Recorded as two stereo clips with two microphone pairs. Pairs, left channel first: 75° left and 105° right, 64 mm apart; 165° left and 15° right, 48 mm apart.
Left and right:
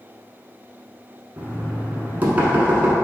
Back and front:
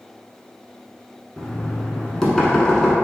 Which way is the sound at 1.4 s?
130° right.